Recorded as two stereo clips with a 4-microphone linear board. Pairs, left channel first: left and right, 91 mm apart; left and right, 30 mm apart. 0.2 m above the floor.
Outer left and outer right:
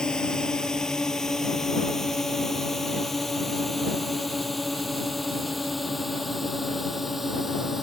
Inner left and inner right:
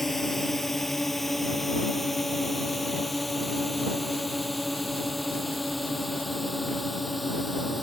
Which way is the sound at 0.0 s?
10° left (ahead or behind).